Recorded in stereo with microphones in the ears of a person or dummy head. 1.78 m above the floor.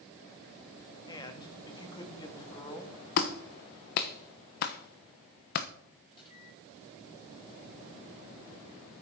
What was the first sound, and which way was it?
A man speaking, 20° left (ahead or behind).